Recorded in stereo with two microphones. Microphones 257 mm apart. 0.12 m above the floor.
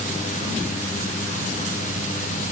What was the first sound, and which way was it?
Only background noise.